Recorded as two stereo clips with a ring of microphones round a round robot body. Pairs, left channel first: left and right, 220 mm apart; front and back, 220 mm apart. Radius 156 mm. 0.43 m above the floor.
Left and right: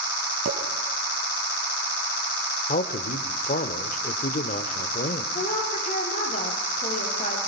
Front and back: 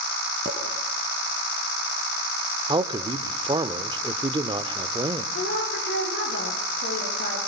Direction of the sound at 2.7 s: 125° left.